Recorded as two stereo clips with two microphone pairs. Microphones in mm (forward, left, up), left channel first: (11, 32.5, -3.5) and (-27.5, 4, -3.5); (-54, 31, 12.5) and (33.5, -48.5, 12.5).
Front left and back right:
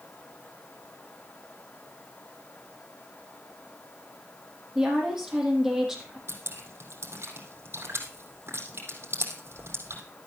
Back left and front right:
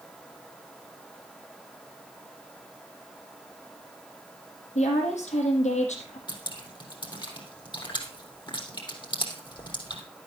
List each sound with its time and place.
4.8 s a woman speaking: 135° left, 4.5 m
6.3 s dripping: 170° right, 3.5 m